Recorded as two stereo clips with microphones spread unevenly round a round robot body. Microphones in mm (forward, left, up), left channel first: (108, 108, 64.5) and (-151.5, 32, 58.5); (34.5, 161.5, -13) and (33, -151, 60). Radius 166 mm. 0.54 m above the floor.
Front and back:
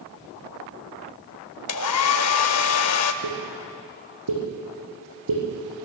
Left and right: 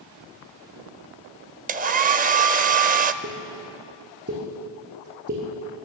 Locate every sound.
1.7 s a hair dryer: 30° right, 0.5 m
3.2 s a pop: 150° right, 5.5 m